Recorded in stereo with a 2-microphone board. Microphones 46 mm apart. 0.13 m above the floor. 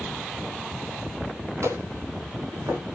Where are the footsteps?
80° right, 8.5 m.